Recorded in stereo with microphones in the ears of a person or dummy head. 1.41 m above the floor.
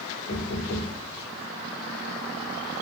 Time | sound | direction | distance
0.3 | knocking | 70° left (ahead or behind) | 1.2 m